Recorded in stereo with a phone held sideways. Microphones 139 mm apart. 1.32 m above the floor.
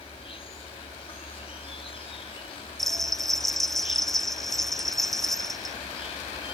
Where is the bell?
Centre (ahead or behind).